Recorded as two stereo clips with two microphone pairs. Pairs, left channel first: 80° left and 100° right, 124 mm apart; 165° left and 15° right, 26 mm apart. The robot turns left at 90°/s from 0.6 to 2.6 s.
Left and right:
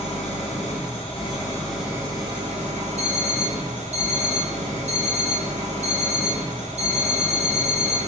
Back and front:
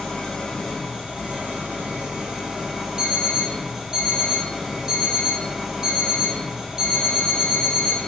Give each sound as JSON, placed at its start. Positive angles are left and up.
{"t": 0.0, "sound": "an engine running", "azimuth_deg": 90, "distance_m": 1.6}
{"t": 3.0, "sound": "an alarm clock", "azimuth_deg": -80, "distance_m": 1.8}